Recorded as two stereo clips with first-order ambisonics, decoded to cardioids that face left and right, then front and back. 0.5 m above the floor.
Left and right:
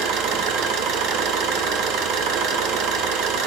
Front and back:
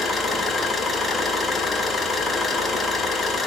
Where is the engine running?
80° right, 0.9 m.